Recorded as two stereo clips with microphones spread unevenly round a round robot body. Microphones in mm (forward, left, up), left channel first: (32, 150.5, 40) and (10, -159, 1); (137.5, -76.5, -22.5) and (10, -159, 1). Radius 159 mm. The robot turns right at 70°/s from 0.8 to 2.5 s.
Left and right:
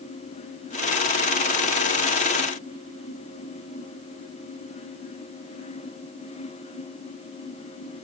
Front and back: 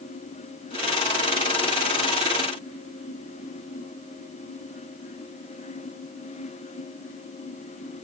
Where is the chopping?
No chopping in this recording.